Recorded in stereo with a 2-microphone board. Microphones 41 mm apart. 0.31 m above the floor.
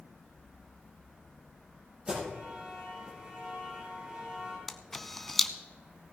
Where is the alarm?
25° right (ahead or behind), 6 m.